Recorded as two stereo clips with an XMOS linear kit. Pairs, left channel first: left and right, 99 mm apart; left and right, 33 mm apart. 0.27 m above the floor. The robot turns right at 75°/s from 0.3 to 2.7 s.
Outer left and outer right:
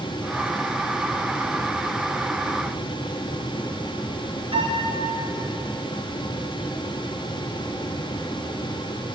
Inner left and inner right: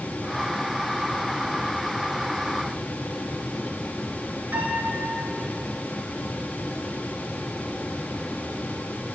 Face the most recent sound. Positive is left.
turn(degrees=-65)  # may be behind; listen again after turning